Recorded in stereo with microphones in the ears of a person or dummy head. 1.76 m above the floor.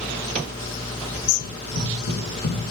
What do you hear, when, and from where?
1.4 s running footsteps: 60° left (ahead or behind), 4.5 m